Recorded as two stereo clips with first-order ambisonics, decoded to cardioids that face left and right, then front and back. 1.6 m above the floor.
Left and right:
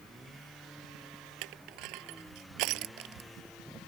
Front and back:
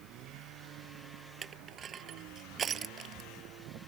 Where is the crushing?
115° right.